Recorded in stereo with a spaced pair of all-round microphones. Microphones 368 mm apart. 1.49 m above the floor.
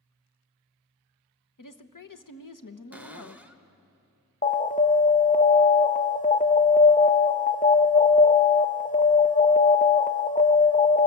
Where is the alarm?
25° left (ahead or behind), 0.5 m.